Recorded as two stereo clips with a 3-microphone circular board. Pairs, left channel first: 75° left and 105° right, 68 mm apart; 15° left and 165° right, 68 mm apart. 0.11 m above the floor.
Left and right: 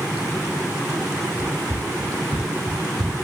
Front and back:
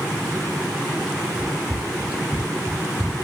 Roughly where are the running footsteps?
Right.